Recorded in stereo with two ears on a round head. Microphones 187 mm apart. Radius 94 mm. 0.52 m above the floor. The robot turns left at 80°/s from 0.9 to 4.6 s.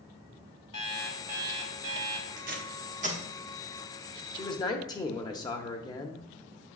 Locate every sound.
0.7 s an alarm clock: 25° left, 1.4 m; by 2.3 s 85° right, 1.4 m
2.4 s tape being pulled: 40° right (ahead or behind), 1.1 m; by 3.2 s 30° right (ahead or behind), 1.1 m
4.3 s a man speaking: 20° left (ahead or behind), 0.7 m